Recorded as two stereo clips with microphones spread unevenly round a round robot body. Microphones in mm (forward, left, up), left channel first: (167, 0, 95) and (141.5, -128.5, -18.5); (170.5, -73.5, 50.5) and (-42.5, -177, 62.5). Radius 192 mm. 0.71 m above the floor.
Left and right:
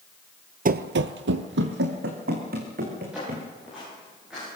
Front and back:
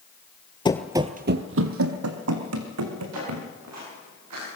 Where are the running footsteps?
40° right, 0.8 m; by 3.5 s 155° right, 4 m.